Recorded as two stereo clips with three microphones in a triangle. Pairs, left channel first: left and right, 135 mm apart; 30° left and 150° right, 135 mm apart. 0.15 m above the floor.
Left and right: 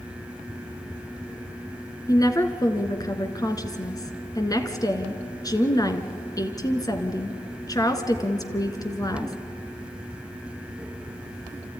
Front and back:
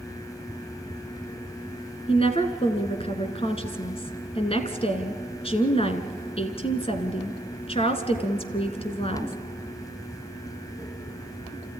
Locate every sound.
2.1 s a woman speaking: 40° left, 1.7 m